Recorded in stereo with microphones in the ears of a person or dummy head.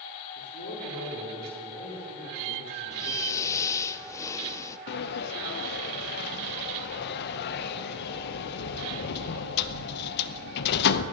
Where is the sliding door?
60° left (ahead or behind), 0.8 m.